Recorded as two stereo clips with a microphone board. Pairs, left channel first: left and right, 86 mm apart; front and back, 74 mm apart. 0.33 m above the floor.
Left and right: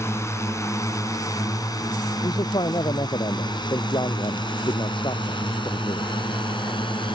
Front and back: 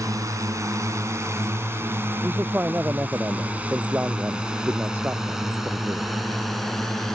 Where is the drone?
145° left; by 7.2 s 85° left.